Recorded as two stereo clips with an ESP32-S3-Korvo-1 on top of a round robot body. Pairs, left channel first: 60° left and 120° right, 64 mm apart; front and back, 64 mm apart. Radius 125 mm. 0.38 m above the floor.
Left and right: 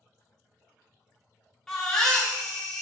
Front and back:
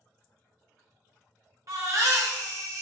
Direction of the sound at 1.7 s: 140° left.